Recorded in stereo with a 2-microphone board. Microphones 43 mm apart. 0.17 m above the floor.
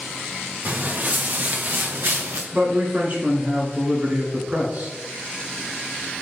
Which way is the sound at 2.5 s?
35° right (ahead or behind).